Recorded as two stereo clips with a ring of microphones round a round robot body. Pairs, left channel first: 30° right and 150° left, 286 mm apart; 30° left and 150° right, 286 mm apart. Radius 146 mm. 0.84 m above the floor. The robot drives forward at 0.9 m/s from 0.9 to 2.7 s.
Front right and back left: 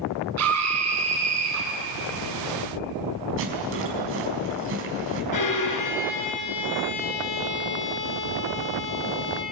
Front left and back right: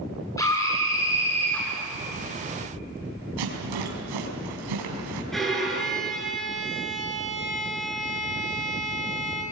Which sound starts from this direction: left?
A scream, at 0.4 s.